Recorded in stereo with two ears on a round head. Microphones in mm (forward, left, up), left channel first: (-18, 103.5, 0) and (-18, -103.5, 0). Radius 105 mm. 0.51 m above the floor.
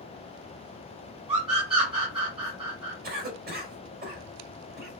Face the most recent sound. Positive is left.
turn(degrees=-40)  # may be behind; listen again after turning